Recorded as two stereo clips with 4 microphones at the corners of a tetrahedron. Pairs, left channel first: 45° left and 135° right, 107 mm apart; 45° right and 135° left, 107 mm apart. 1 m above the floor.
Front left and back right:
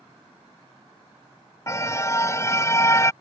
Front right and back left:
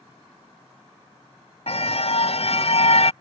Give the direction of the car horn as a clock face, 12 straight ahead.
1 o'clock.